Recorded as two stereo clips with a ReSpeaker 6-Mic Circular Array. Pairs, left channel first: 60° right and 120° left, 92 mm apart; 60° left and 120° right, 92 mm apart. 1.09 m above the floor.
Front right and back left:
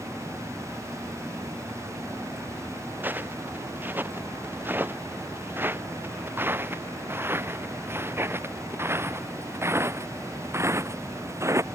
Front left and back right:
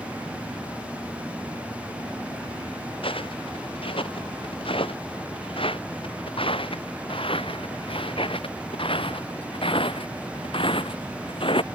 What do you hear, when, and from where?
3.0 s footsteps: 50° left; by 11.7 s 65° left